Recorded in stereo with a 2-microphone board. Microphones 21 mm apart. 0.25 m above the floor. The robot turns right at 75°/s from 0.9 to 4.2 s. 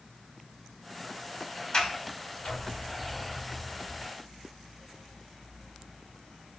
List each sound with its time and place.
1.7 s a sliding door: 45° left (ahead or behind), 1.0 m; by 4.1 s 40° right (ahead or behind), 1.0 m